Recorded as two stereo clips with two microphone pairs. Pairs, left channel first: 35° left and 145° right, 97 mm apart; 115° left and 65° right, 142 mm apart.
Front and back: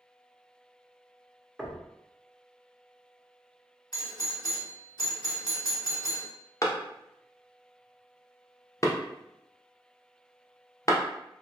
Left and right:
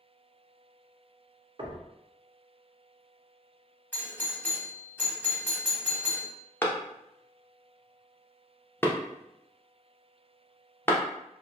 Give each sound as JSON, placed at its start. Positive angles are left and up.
{"t": 1.6, "sound": "knocking", "azimuth_deg": -65, "distance_m": 0.5}
{"t": 3.9, "sound": "a doorbell", "azimuth_deg": 45, "distance_m": 1.0}
{"t": 6.6, "sound": "a clap", "azimuth_deg": 50, "distance_m": 0.5}